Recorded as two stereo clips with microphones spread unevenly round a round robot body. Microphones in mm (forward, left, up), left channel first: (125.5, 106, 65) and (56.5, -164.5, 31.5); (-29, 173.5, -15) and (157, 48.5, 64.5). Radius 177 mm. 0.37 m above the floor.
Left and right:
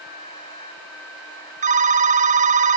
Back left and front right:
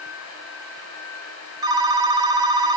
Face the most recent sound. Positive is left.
turn(degrees=-130)